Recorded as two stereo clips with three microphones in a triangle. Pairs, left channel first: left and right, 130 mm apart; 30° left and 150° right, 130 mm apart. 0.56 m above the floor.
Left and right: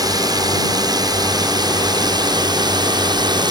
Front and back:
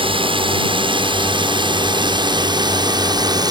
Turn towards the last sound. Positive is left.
turn(degrees=-115)